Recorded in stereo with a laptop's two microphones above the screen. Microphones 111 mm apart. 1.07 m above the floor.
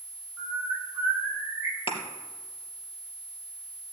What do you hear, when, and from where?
0.4 s a bird: centre (ahead or behind), 6.5 m
1.9 s a thud: 50° left (ahead or behind), 3 m